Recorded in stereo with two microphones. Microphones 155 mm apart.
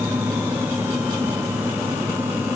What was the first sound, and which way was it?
Only background noise.